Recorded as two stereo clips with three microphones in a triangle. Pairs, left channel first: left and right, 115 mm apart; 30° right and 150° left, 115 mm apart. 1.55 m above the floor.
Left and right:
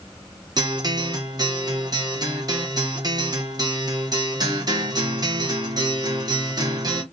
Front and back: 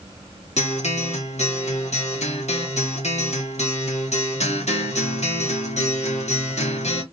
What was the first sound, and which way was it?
A guitar, 35° right.